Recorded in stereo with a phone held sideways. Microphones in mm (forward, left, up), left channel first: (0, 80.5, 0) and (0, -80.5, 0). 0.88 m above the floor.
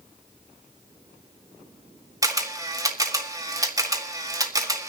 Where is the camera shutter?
20° right (ahead or behind), 1.7 m.